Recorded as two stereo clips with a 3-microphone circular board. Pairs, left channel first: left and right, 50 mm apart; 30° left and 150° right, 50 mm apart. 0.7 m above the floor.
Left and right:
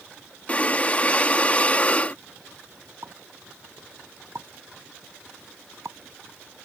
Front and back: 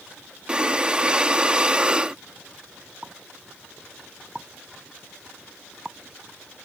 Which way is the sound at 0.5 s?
145° left.